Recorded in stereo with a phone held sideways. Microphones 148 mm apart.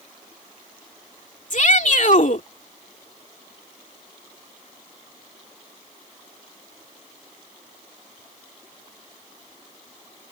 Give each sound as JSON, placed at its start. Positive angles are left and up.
{"t": 1.5, "sound": "a shout", "side_deg": 60}